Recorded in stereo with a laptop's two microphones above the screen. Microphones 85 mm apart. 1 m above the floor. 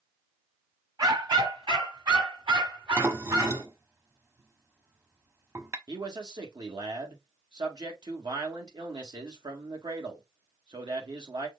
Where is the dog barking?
60° right (ahead or behind), 1.5 m; by 3.6 s 70° right (ahead or behind), 3.5 m.